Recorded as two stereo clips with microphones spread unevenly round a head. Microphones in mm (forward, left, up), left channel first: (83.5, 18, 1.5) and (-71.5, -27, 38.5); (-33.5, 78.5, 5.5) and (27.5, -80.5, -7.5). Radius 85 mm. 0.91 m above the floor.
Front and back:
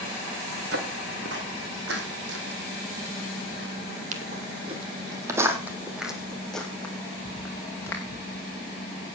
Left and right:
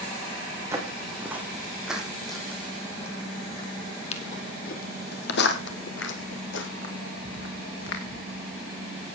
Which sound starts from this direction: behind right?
Footsteps, at 0.7 s.